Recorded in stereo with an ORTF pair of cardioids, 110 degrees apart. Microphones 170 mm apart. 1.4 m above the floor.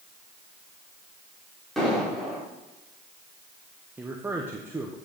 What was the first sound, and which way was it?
An explosion, straight ahead.